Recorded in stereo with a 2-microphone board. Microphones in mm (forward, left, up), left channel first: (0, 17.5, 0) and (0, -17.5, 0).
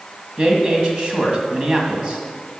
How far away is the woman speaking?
About 1.9 m.